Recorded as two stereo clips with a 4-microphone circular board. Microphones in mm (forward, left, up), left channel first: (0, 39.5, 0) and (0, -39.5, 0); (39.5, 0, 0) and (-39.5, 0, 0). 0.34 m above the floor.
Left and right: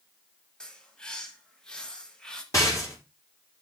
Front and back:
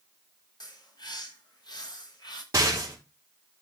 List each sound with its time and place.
0.6 s a bird: 10° left, 1.4 m
2.5 s a rattle: 135° left, 4.5 m